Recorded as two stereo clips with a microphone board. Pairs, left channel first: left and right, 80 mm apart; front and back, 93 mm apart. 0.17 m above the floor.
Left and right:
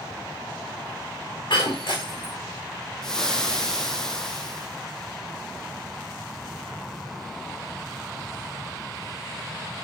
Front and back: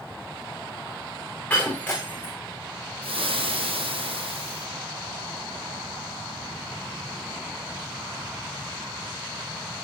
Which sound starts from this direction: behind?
Frying, at 3.0 s.